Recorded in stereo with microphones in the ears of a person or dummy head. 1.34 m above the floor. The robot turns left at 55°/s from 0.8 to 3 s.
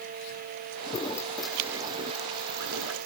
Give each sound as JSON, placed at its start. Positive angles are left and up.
{"t": 0.9, "sound": "a toilet flushing", "azimuth_deg": 30}